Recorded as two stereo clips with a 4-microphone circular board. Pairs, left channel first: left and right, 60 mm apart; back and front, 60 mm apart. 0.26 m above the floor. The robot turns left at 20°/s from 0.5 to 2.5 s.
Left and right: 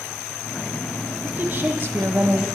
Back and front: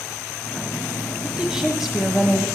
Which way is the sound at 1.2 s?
65° right.